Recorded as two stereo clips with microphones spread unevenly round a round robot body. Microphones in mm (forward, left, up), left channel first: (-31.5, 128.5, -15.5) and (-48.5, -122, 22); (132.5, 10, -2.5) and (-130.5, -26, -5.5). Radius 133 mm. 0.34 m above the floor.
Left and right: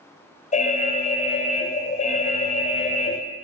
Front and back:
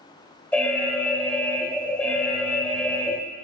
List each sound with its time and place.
0.5 s an alarm: 90° left, 0.8 m